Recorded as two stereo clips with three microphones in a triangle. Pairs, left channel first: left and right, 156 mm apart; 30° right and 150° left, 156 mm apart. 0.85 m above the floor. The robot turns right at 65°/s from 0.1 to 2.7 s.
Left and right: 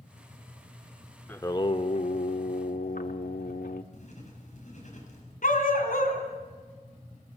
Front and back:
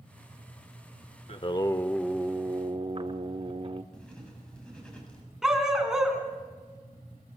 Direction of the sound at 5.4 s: 65° left.